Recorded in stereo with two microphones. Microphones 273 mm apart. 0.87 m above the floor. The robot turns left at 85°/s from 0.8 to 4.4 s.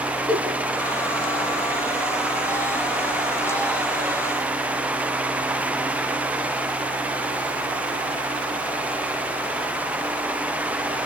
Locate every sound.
0.3 s a giggle: 15° left (ahead or behind), 4 m